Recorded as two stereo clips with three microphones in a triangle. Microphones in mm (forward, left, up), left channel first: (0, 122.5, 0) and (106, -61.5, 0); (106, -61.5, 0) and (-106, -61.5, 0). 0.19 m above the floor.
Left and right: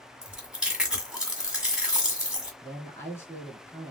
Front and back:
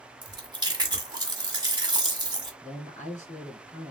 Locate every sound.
0.2 s chewing: 145° right, 1.7 m
2.6 s a man speaking: 45° left, 2.5 m